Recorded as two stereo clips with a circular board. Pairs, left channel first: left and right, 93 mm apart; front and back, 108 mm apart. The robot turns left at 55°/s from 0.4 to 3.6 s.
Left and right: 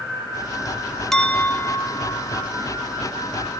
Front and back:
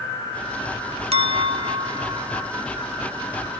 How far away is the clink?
About 1.0 m.